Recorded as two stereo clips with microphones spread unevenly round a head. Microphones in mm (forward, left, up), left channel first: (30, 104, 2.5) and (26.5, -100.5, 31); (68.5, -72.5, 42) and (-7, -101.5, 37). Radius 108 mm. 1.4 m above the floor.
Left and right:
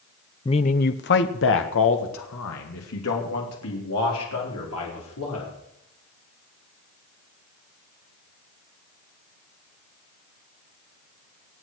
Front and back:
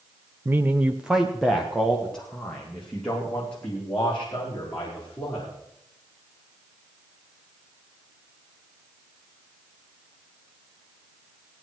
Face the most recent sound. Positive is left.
turn(degrees=100)